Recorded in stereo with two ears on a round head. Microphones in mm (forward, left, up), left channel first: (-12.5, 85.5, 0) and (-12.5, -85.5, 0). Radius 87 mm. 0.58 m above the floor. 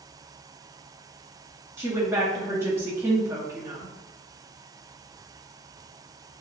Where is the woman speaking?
15° right (ahead or behind), 0.6 m.